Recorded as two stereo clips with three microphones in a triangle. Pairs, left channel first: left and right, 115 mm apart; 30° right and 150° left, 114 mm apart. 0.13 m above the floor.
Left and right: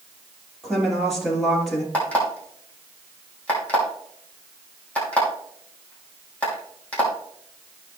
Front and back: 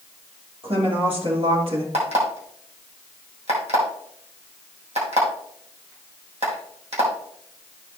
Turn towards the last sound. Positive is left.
turn(degrees=170)